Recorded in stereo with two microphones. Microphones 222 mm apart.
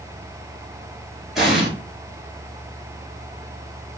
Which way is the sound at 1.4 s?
Centre (ahead or behind).